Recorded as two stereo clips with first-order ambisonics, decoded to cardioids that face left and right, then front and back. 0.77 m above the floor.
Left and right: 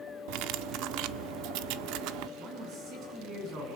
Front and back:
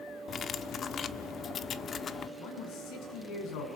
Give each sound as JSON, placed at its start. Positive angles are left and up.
{"t": 0.3, "sound": "cutlery clinking", "azimuth_deg": -65, "distance_m": 0.8}
{"t": 2.4, "sound": "a man speaking", "azimuth_deg": -40, "distance_m": 7.5}